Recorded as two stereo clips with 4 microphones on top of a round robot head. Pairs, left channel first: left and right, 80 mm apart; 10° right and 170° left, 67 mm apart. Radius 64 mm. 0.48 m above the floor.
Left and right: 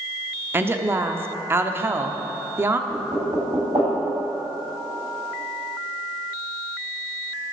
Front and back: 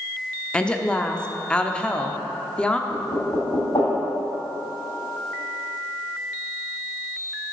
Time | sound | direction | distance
0.5 | a woman speaking | 70° right | 0.8 m
2.9 | knocking | 50° right | 3 m